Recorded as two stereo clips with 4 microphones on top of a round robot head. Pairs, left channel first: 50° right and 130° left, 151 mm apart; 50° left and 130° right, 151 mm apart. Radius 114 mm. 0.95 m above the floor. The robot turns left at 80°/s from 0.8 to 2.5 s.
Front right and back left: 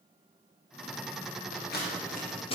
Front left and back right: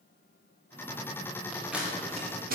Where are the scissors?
25° right, 3.5 m; by 2.5 s 105° right, 3.5 m.